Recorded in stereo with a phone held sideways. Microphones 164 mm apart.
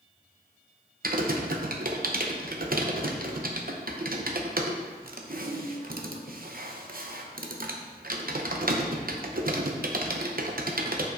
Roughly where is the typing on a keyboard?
Right.